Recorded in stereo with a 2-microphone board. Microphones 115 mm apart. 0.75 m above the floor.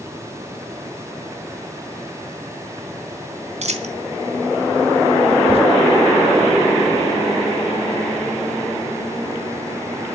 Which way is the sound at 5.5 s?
55° left (ahead or behind).